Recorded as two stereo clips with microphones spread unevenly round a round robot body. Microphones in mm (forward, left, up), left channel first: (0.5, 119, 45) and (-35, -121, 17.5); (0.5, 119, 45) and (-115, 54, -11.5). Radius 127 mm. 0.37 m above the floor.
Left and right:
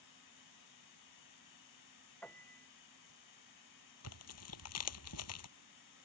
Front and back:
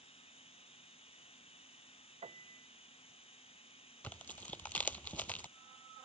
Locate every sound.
0.0 s running water: 75° left
2.2 s a piano: 165° left
4.0 s tearing paper: 105° left